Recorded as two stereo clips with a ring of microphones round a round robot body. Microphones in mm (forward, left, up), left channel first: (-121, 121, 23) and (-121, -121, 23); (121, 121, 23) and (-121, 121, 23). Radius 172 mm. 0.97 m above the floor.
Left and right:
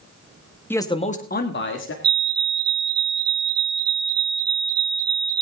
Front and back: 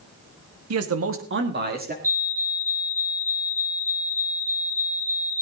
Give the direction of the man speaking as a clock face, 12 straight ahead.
6 o'clock.